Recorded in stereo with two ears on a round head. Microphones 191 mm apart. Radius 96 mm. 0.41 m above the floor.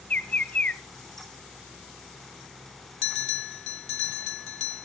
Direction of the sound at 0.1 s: 5° left (ahead or behind).